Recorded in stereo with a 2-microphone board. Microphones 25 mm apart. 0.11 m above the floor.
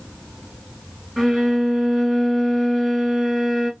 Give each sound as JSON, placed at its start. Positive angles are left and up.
{"t": 1.2, "sound": "a violin", "side_deg": -10, "distance_m": 1.5}